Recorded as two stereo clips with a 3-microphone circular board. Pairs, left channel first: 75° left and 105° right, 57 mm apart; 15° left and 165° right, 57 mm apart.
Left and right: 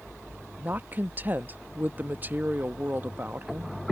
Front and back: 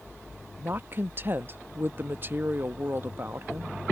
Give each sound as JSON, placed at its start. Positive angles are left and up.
{"t": 0.6, "sound": "a woman speaking", "azimuth_deg": -145}